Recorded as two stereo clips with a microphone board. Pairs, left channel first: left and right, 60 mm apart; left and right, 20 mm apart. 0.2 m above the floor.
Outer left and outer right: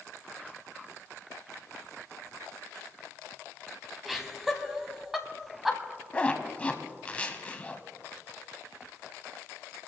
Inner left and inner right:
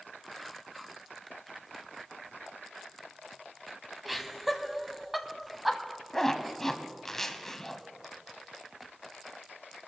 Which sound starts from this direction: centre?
Laughter, at 4.0 s.